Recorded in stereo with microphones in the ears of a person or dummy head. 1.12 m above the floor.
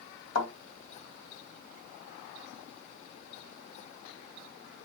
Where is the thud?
70° left (ahead or behind), 2 m.